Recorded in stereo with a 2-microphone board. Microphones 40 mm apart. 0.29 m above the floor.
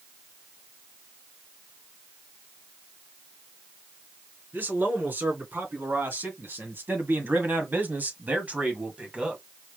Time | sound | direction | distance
4.5 | a man speaking | 55° right (ahead or behind) | 3 m